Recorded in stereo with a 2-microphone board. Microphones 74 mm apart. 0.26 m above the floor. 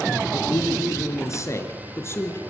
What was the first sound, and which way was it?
A man speaking, 45° left (ahead or behind).